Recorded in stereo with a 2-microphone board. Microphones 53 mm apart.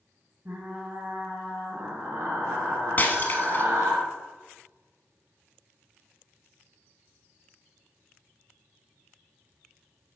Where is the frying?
50° right (ahead or behind), 1.9 m.